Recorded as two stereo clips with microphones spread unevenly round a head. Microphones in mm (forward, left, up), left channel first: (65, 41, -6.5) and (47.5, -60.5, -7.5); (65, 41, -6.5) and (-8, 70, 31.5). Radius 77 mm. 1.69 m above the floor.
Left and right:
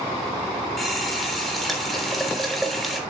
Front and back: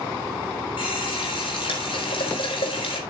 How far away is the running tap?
About 3.5 m.